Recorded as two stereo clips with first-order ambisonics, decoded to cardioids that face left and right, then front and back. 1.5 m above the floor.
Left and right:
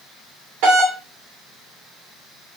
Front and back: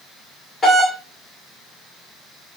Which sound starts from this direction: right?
A doorbell, at 0.6 s.